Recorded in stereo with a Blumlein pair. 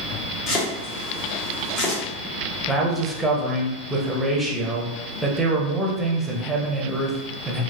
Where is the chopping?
30° left, 0.8 m.